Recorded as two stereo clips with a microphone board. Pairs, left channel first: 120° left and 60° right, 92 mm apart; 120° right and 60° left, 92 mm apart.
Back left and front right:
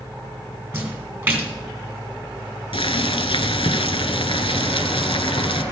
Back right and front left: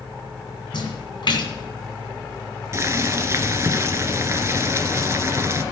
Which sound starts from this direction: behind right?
A splash, at 0.7 s.